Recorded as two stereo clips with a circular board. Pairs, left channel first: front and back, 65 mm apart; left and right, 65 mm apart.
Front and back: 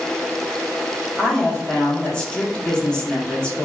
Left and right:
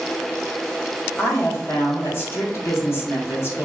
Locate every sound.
1.2 s a woman speaking: 70° left, 0.8 m